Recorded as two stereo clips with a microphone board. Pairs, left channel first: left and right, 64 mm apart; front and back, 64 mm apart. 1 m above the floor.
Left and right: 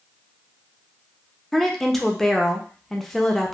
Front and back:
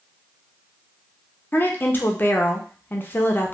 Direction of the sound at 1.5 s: 10° left.